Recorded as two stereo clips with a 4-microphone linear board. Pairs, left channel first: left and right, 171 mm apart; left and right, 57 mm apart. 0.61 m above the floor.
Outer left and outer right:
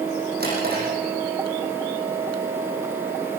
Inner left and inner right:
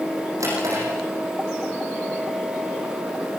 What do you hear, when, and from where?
0.4 s a drawer: 70° right (ahead or behind), 8.5 m